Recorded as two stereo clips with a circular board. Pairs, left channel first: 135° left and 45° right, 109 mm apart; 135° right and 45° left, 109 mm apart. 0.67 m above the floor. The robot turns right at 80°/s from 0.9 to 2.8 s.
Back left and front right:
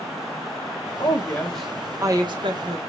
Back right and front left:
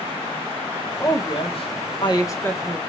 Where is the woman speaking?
175° left, 1.2 m; by 2.8 s 40° right, 1.2 m.